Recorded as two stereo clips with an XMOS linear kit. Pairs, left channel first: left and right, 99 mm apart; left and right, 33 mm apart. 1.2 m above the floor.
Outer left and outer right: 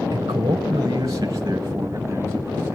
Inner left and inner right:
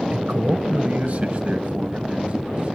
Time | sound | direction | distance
0.1 | a man speaking | 45° right (ahead or behind) | 0.7 m